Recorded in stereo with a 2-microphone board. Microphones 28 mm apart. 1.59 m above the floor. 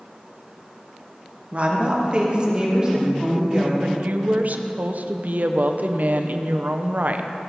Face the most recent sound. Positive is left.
turn(degrees=-60)  # may be behind; listen again after turning